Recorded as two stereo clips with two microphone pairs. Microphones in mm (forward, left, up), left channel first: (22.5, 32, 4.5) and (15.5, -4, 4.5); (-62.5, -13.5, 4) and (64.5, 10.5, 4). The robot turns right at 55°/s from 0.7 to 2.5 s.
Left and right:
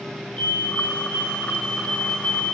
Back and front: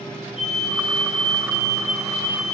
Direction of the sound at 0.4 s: 25° left.